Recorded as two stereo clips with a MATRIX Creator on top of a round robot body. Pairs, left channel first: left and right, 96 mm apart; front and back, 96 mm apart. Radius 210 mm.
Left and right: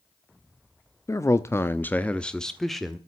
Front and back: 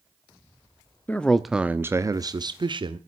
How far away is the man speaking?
About 1.3 m.